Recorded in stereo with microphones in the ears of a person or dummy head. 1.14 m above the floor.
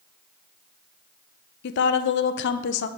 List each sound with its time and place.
1.6 s a woman speaking: 60° left (ahead or behind), 0.6 m